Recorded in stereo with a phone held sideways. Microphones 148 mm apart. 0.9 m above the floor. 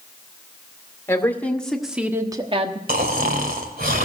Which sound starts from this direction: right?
Snoring, at 2.9 s.